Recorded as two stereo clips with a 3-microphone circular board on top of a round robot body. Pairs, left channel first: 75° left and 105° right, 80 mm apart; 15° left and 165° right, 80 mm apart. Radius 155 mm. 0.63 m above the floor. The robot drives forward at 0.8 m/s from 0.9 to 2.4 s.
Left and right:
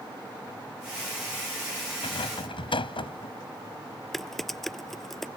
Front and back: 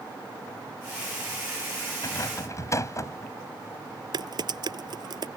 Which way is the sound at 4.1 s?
160° left.